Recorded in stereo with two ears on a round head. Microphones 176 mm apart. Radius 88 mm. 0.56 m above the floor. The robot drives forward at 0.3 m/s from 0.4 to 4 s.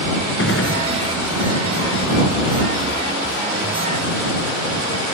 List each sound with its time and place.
0.4 s a gunshot: 60° left (ahead or behind)